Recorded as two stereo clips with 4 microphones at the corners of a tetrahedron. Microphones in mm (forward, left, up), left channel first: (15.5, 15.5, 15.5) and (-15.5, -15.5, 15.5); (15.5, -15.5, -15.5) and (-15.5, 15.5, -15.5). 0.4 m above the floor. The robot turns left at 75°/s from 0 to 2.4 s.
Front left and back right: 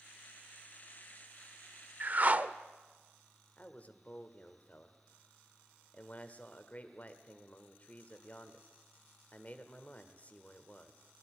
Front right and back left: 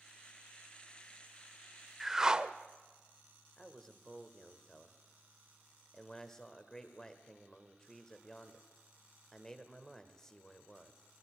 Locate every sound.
2.0 s a whoosh: 135° right, 0.6 m; by 2.5 s 165° right, 0.6 m
3.6 s a man speaking: 20° left, 1.4 m